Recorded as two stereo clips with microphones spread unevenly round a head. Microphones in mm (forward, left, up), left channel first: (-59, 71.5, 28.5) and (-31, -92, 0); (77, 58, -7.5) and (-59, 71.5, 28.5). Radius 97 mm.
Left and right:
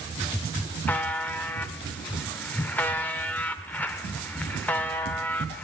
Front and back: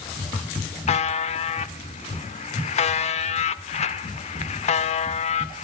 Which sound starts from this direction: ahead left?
A buzzer, at 0.9 s.